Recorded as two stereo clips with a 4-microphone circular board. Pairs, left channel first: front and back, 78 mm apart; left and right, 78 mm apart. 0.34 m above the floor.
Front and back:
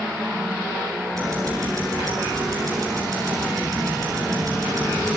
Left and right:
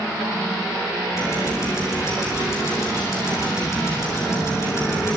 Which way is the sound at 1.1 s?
140° left.